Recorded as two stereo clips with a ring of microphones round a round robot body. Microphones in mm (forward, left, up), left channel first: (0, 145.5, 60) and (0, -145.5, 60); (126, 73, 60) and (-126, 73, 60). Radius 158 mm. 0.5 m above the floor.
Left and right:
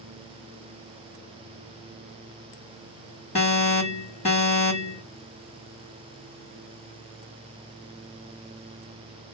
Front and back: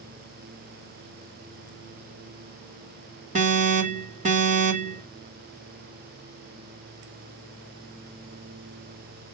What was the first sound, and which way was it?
An alarm, 140° left.